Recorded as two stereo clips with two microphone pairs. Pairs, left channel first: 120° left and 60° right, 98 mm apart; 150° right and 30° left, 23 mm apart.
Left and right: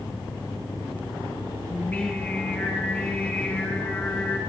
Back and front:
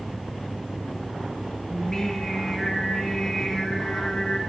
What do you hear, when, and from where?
1.7 s singing: 170° left, 1.7 m